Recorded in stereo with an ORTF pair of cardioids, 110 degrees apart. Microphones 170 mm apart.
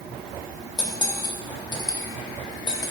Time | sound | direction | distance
0.8 | cutlery clinking | 25° left | 1.2 m